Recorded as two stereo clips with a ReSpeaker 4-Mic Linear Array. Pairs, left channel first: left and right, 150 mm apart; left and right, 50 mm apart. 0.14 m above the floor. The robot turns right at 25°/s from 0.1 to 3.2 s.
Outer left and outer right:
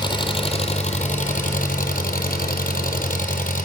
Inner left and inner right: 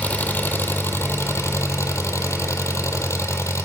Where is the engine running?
30° left, 0.9 m; by 3.6 s 110° left, 0.9 m.